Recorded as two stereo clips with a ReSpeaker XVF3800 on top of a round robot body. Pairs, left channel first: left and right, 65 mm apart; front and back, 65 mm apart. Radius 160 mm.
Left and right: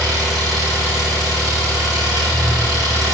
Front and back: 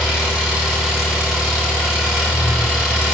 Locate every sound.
0.0 s an engine running: 105° right, 3.5 m